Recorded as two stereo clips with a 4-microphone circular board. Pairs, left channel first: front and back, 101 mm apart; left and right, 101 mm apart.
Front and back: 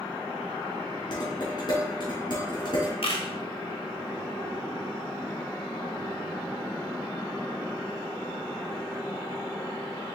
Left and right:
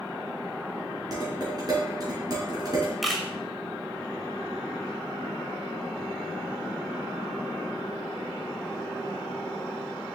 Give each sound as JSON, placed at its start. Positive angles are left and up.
{"t": 1.1, "sound": "dishes clattering", "azimuth_deg": -40, "distance_m": 3.5}
{"t": 3.0, "sound": "a camera shutter", "azimuth_deg": 0, "distance_m": 1.5}